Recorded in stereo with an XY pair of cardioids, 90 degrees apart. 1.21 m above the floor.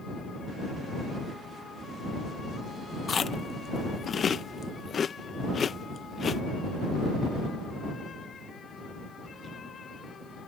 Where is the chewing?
50° left.